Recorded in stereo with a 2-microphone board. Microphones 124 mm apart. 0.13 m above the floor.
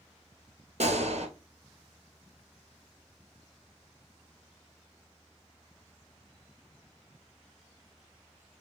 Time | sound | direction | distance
0.8 | a gunshot | 65° right (ahead or behind) | 1.0 m